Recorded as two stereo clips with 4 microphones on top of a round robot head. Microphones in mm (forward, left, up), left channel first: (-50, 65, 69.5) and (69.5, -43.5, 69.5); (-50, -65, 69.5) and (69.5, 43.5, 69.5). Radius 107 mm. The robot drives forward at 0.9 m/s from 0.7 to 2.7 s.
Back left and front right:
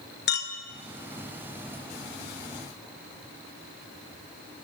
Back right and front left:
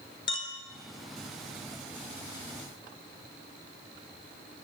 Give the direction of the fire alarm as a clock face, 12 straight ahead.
No fire alarm in this recording.